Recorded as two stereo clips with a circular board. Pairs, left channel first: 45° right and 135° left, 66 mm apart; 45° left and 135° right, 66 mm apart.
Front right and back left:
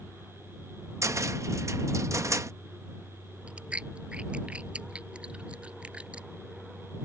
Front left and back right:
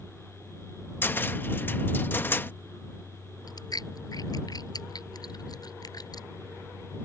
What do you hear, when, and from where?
1.0 s a cupboard door: 100° left
3.5 s chewing: 60° left